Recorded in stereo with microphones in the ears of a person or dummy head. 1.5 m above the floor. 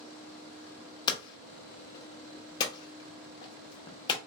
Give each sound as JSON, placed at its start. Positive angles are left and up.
{"t": 1.1, "sound": "hammering", "side_deg": 30, "distance_m": 0.8}